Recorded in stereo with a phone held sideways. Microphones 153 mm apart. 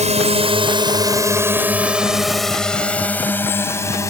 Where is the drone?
50° right (ahead or behind); by 4.1 s 20° left (ahead or behind).